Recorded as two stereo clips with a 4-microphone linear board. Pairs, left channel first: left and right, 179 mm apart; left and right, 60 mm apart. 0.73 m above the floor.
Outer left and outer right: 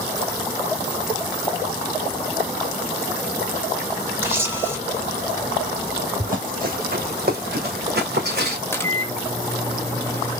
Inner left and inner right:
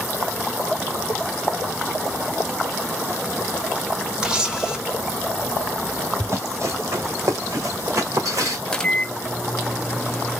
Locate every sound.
4.2 s a camera shutter: 15° right (ahead or behind), 1.2 m
6.2 s running footsteps: 50° right (ahead or behind), 1.8 m; by 8.6 s 65° right (ahead or behind), 3 m
8.7 s a microwave: 15° left (ahead or behind), 0.6 m